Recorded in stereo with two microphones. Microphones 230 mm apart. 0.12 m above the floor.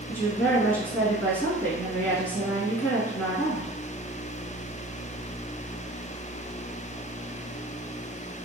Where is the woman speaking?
5° left (ahead or behind), 1.4 m.